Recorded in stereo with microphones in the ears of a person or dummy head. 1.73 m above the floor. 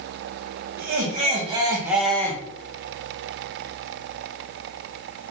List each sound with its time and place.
0.8 s laughter: 50° right (ahead or behind), 1.1 m; by 2.4 s 20° left (ahead or behind), 0.8 m